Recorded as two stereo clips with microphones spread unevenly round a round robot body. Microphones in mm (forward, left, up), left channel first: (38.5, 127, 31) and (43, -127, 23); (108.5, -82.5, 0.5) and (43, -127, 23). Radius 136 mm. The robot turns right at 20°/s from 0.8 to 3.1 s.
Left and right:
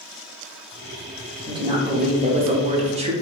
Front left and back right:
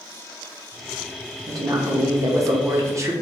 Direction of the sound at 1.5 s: 135° right.